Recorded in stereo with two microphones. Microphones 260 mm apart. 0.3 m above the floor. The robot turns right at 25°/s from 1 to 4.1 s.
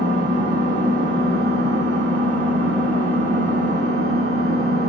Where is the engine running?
135° right, 0.7 m; by 4.9 s 55° right, 0.7 m.